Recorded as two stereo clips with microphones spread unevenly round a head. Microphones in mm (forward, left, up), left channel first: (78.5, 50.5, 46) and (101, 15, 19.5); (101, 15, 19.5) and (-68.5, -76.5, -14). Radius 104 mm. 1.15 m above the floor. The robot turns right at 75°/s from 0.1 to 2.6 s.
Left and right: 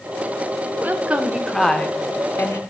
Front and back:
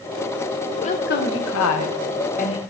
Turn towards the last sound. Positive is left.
turn(degrees=100)